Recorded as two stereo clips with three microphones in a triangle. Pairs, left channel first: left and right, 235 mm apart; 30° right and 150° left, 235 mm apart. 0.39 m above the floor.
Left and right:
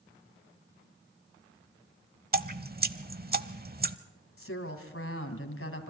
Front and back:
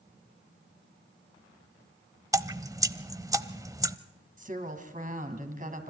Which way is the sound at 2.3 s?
135° right.